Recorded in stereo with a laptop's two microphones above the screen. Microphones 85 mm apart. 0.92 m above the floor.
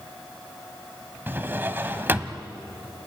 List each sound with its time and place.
1.3 s a drawer: 25° right (ahead or behind), 1.4 m